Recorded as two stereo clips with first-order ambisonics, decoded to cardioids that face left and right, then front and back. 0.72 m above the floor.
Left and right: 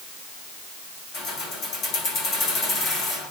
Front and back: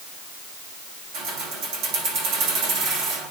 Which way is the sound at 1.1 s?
135° left.